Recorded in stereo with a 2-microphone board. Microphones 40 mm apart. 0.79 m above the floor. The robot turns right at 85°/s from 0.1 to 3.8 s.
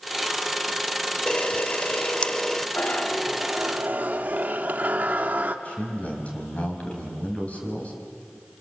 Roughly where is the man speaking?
Left.